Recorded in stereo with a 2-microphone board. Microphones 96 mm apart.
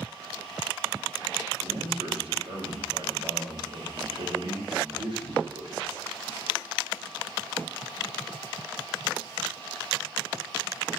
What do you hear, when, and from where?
1.6 s a man speaking: 60° right (ahead or behind), 3 m